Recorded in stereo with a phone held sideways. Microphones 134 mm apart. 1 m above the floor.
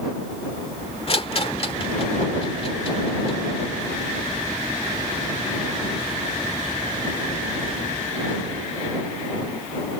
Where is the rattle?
45° left (ahead or behind).